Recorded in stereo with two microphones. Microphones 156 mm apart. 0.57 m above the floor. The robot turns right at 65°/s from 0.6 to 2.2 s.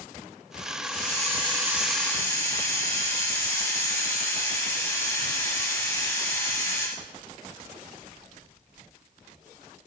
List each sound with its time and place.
0.8 s a hiss: 70° right, 4.5 m; by 6.9 s 20° left, 4.5 m